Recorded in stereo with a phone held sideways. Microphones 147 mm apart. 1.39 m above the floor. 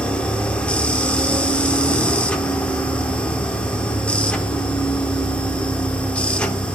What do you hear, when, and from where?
0.0 s a machine running: 10° left (ahead or behind), 1.0 m